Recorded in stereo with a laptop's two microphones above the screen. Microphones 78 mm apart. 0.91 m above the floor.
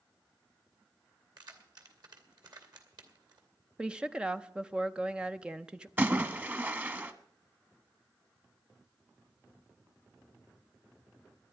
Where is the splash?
25° right (ahead or behind), 1.1 m.